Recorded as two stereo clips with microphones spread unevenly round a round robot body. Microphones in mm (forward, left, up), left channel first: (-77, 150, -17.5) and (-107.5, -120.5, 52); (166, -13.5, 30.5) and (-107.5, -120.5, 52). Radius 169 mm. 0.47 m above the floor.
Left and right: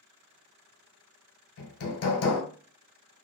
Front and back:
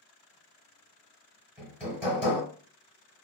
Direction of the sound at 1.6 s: 120° left.